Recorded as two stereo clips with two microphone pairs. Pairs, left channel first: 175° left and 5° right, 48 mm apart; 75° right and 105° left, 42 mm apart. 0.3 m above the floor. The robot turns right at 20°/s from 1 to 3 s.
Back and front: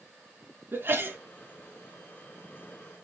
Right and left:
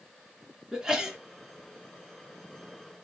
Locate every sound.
0.7 s a sneeze: 35° left, 3 m; by 1.2 s 40° left, 3 m